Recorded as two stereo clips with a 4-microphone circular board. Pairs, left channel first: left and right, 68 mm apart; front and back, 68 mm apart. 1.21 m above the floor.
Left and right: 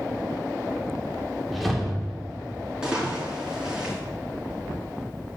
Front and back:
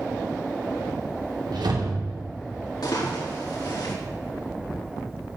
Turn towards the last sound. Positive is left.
turn(degrees=-15)